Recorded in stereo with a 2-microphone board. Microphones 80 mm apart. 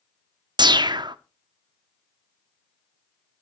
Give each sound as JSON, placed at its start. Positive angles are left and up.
{"t": 0.6, "sound": "a whoosh", "side_deg": -65, "distance_m": 0.7}